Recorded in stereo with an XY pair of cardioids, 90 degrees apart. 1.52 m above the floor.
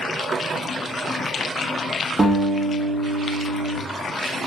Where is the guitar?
30° right, 1.9 m.